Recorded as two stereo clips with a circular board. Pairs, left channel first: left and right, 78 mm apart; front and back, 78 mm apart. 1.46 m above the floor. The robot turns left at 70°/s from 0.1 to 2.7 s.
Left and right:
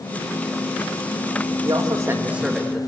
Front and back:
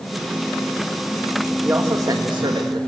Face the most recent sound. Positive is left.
turn(degrees=175)